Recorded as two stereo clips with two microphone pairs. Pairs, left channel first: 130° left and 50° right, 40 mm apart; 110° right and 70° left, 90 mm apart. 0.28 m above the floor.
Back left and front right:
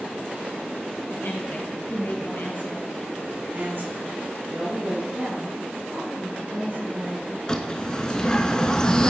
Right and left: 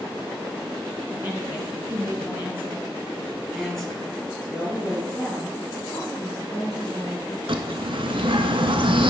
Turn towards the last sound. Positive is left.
turn(degrees=60)